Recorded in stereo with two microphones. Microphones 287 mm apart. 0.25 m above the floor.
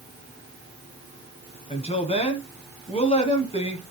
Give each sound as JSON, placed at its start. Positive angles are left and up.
{"t": 1.7, "sound": "a woman speaking", "side_deg": 20, "distance_m": 2.0}